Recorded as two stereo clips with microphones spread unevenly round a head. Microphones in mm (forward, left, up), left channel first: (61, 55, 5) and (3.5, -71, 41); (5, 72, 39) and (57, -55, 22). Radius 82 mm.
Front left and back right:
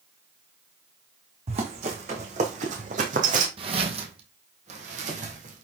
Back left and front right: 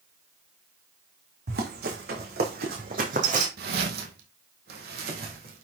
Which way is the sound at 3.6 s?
80° right.